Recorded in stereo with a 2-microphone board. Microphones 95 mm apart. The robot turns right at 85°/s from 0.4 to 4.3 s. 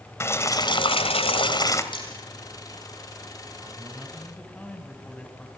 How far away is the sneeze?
No sneeze in this recording.